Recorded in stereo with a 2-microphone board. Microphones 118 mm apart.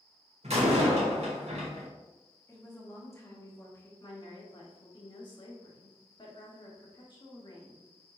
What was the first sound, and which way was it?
A door slam, 70° right (ahead or behind).